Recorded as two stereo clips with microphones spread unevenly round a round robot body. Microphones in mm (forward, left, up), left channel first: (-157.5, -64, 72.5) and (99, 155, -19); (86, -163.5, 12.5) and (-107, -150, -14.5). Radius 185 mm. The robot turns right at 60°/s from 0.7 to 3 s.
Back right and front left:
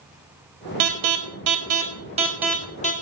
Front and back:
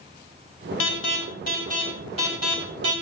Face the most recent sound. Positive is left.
turn(degrees=155)